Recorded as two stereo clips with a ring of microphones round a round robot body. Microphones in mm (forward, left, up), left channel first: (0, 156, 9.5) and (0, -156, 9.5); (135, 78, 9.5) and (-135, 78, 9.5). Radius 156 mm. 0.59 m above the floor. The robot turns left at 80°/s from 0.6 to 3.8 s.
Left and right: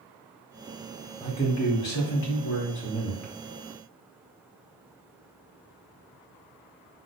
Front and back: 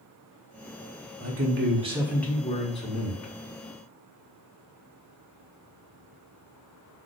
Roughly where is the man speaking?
Behind.